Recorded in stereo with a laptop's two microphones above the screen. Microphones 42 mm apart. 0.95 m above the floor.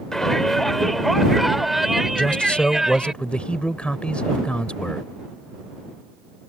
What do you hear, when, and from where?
0.1 s a shout: 10° left (ahead or behind); by 3.1 s 15° right (ahead or behind)
2.1 s a man speaking: 25° left (ahead or behind)